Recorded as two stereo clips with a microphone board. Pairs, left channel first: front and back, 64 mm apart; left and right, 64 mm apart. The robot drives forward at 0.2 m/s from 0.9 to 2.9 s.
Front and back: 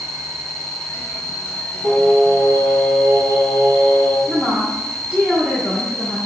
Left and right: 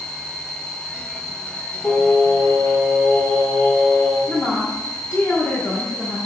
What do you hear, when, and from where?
0.0 s an insect: 170° right, 1.6 m
1.8 s singing: straight behind, 1.8 m
4.3 s a woman speaking: 135° left, 0.7 m